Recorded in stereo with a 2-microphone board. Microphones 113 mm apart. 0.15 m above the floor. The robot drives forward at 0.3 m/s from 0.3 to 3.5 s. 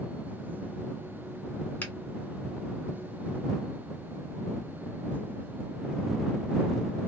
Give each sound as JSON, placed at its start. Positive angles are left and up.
{"t": 1.8, "sound": "a finger snap", "side_deg": 15, "distance_m": 1.7}